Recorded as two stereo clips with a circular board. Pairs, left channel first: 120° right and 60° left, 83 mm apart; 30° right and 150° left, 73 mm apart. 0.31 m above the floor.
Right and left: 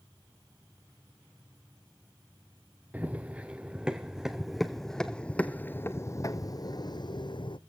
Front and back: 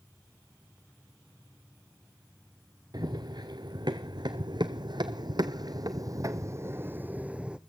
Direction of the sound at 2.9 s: 130° left.